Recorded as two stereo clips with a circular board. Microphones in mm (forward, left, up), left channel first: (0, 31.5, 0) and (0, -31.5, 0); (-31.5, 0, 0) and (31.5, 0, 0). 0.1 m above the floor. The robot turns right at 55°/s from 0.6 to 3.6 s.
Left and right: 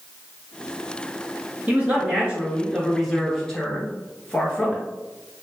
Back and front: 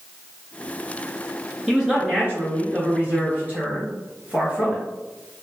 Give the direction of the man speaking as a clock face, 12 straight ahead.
2 o'clock.